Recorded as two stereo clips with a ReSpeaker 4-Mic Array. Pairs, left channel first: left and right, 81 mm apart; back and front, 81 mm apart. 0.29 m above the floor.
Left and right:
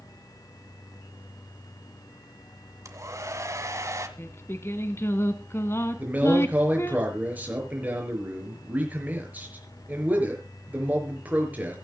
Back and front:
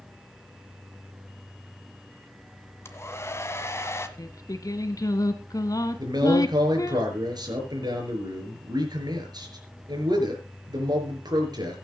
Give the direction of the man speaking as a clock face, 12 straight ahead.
1 o'clock.